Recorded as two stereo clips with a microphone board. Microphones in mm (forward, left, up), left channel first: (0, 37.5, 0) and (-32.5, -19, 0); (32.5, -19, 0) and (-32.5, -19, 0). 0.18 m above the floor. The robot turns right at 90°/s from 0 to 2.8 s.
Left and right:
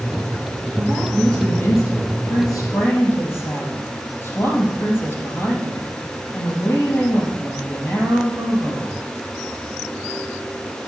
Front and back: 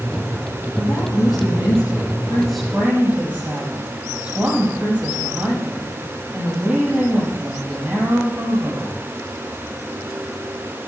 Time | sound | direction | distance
0.8 | a woman speaking | 70° right | 5.5 m